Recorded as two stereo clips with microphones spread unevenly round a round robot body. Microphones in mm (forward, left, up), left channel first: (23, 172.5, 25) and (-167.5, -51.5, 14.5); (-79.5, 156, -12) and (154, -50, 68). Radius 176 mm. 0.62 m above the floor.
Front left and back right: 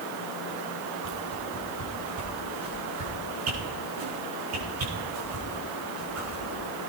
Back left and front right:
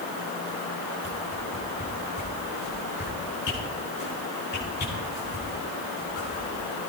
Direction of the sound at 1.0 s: 160° right.